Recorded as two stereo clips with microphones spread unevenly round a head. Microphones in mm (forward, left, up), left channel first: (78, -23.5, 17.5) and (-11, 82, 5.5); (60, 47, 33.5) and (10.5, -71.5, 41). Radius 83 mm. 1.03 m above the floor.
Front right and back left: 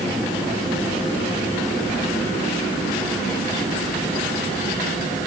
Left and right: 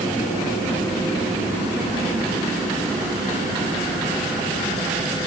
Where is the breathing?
No breathing in this recording.